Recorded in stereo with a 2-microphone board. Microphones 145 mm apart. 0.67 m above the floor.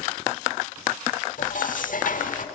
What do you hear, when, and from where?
1.4 s dishes clattering: 65° left (ahead or behind), 1.2 m